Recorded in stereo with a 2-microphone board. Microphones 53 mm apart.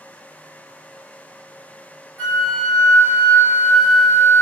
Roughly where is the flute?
Left.